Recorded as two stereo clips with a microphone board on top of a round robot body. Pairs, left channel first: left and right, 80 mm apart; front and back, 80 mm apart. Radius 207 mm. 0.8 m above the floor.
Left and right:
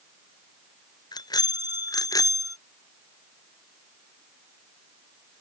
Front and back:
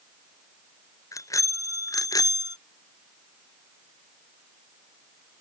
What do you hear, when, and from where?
1.1 s a bicycle bell: 50° left; by 2.6 s 40° left